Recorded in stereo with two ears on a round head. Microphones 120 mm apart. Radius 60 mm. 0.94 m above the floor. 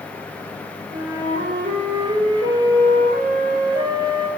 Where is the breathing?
I don't hear breathing.